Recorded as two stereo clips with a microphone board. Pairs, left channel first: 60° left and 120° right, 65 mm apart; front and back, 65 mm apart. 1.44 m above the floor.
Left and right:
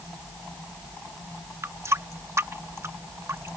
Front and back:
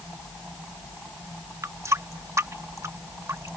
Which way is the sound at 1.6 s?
155° right.